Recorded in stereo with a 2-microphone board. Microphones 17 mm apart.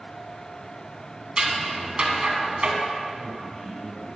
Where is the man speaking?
50° left (ahead or behind), 1.5 m.